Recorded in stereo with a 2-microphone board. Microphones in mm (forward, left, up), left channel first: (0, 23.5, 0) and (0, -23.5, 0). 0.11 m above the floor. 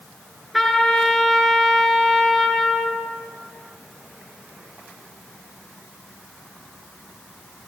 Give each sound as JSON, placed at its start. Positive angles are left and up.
{"t": 0.5, "sound": "a trumpet", "side_deg": 0, "distance_m": 1.6}